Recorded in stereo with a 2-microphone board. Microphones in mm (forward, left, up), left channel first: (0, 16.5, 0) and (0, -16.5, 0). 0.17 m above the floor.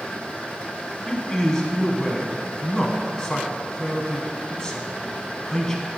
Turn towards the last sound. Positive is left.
turn(degrees=20)  # may be behind; listen again after turning